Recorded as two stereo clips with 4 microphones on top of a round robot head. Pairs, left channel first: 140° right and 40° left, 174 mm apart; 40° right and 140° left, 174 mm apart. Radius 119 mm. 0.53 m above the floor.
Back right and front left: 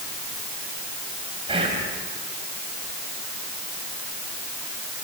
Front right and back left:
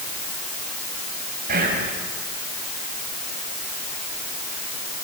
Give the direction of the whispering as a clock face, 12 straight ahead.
9 o'clock.